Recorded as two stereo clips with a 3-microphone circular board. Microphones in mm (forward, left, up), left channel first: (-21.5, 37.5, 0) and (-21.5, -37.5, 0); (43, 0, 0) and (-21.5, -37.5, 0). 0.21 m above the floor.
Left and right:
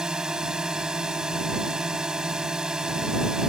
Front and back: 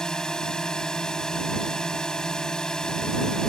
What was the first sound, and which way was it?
A drone, 30° right.